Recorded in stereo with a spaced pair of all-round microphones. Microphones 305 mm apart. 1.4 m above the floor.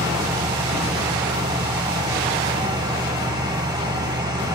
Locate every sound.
0.0 s a fan: 10° right (ahead or behind), 1.5 m